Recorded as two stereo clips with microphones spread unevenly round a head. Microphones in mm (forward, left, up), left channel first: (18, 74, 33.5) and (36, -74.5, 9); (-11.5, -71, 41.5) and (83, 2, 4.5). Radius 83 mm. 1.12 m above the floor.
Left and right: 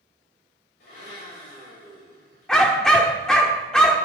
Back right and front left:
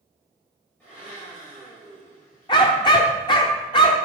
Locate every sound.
0.8 s a blender: 135° left, 7 m
2.5 s a dog barking: 175° left, 1.0 m